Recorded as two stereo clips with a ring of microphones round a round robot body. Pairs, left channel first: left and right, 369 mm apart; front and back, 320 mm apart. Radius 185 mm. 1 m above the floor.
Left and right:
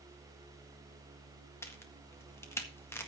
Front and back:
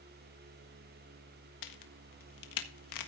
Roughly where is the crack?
Ahead.